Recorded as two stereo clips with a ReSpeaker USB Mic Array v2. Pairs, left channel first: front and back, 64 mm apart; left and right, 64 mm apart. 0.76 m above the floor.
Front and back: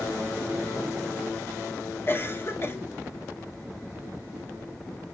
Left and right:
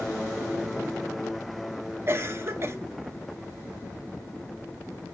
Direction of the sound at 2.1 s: 45° right.